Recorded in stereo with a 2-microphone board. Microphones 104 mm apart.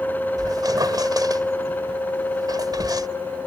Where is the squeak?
40° right (ahead or behind).